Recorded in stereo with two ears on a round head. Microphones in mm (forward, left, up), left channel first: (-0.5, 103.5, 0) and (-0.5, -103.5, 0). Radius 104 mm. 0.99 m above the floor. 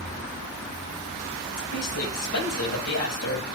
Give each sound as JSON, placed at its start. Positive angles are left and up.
{"t": 1.6, "sound": "a woman speaking", "side_deg": 80, "distance_m": 5.0}